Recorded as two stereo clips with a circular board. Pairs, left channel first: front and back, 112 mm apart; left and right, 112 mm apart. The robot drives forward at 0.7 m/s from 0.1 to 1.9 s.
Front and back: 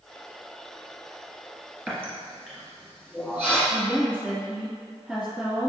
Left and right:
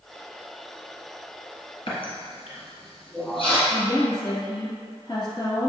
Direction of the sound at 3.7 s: 105° left.